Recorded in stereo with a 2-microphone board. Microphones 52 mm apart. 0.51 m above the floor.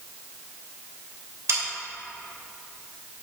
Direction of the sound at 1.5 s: 60° right (ahead or behind).